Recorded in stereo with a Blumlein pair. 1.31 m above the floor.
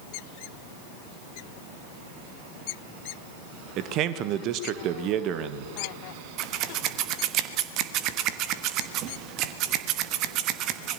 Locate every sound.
3.8 s a man speaking: 35° right, 1.4 m
6.4 s scissors: 40° right, 1.2 m